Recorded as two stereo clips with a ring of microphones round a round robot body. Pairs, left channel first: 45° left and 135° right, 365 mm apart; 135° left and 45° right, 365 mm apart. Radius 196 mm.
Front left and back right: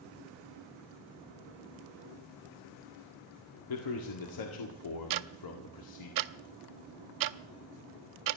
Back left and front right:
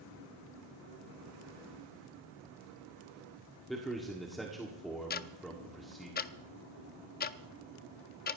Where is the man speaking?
45° left, 1.8 m.